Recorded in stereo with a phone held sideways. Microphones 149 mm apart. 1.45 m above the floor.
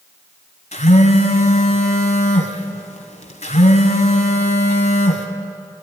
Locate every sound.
0.7 s a phone buzzing: 55° left (ahead or behind), 2 m